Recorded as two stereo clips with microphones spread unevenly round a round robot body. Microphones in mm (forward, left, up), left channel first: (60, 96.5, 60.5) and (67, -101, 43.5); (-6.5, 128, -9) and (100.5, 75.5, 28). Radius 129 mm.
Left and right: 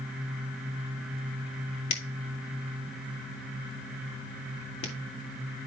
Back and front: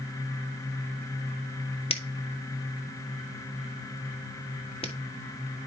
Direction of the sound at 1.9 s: 120° left.